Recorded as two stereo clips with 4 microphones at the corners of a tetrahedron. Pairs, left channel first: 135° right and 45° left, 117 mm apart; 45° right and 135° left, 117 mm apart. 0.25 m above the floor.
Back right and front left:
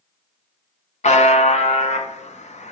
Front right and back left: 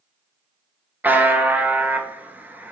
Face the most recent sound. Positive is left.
turn(degrees=-150)